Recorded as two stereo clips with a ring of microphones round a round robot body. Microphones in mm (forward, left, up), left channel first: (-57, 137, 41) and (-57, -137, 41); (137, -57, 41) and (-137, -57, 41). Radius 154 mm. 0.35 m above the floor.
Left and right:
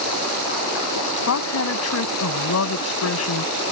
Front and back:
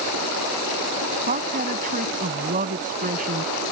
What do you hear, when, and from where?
1.3 s a woman speaking: 115° left